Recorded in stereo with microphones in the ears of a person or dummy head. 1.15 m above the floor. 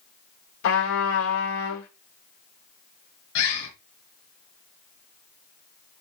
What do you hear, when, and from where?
0.6 s a trumpet: 75° left (ahead or behind), 3 m
3.4 s a bird: 80° left, 5.5 m